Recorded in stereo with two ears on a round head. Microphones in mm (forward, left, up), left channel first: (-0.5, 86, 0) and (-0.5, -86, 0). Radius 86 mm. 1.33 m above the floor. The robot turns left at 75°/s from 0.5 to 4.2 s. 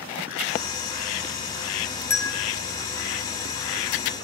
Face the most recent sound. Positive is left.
turn(degrees=0)